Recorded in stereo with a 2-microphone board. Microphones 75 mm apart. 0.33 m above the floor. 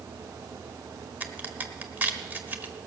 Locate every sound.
1.2 s a crack: 25° right (ahead or behind), 1.1 m